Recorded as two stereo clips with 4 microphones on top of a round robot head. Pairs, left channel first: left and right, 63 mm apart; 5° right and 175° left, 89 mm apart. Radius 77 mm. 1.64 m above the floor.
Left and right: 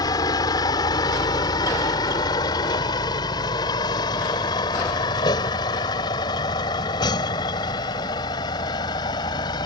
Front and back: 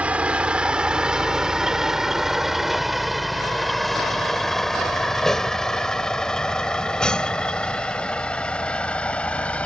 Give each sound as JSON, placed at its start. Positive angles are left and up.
{"t": 0.0, "sound": "a vehicle", "azimuth_deg": 100}